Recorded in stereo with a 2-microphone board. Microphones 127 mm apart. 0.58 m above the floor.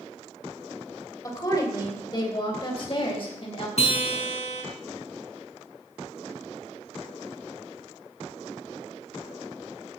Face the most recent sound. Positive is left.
turn(degrees=55)  # may be behind; listen again after turning